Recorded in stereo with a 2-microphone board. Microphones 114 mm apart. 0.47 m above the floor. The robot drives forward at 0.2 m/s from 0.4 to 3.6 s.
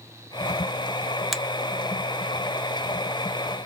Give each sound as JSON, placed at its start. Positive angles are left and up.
{"t": 1.3, "sound": "a finger snap", "side_deg": 0, "distance_m": 0.6}